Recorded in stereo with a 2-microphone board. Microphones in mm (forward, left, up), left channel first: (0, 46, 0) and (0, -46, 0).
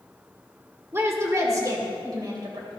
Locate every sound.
0.9 s a woman speaking: 25° right (ahead or behind), 1.8 m; by 2.8 s 50° right (ahead or behind), 3 m